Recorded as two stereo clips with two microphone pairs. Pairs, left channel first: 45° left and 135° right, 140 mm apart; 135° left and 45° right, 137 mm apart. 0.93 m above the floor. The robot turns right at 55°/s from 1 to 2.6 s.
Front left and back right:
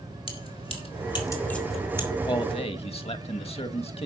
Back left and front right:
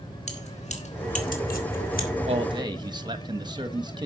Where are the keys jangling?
95° left, 2.5 m; by 2.1 s 155° left, 2.5 m.